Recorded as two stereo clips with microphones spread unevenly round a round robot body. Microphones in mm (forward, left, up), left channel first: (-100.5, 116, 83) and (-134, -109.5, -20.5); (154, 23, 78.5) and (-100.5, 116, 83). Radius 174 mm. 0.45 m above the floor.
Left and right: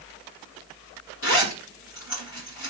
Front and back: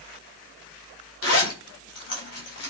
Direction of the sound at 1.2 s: 25° left.